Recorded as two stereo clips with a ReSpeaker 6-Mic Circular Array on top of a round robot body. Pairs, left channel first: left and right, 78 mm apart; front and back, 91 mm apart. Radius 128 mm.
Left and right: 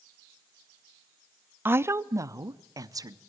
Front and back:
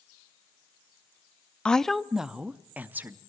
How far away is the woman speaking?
About 0.7 m.